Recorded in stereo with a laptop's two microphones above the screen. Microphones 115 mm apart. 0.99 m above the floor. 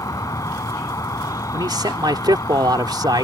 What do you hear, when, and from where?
0.0 s an insect: 30° left (ahead or behind)
1.5 s a man speaking: 40° right (ahead or behind)